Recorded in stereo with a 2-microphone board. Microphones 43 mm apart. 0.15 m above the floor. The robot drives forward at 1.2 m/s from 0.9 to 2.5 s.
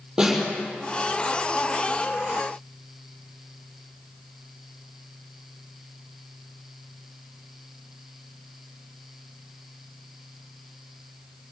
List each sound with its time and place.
0.2 s a snare drum: 10° right (ahead or behind), 5.5 m